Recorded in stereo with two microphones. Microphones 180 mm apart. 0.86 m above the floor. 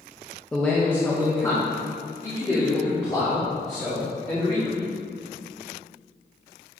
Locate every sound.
0.5 s a man speaking: 5° left (ahead or behind), 0.7 m; by 4.8 s 25° left (ahead or behind), 3 m